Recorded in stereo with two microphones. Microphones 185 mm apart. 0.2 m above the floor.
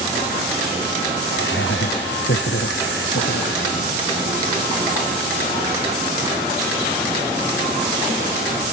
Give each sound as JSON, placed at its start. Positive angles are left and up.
{"t": 1.3, "sound": "laughter", "side_deg": 85}